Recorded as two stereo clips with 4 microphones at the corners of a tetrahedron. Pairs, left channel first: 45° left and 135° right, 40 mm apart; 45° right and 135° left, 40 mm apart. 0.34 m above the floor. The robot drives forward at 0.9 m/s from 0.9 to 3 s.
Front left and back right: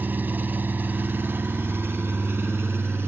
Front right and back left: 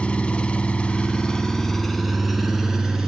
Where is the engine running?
105° right, 1.7 m; by 3.1 s 145° right, 3 m.